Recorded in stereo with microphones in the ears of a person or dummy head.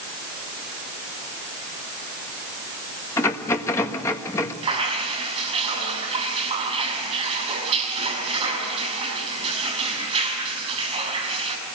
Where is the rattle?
15° left (ahead or behind), 1.6 m.